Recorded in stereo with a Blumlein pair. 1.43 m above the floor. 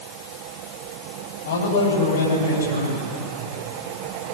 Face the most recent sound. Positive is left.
turn(degrees=65)